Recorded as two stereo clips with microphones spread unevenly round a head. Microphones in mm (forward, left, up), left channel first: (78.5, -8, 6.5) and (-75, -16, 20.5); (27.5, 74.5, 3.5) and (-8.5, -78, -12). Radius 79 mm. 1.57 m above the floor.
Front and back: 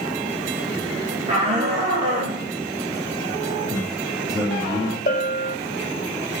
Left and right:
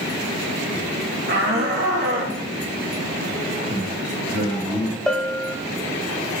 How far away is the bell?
About 1.6 m.